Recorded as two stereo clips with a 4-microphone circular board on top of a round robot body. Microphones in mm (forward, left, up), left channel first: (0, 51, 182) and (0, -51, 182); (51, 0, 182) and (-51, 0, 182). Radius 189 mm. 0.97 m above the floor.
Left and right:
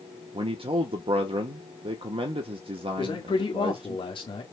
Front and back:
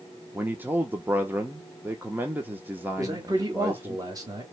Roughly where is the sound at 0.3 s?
Right.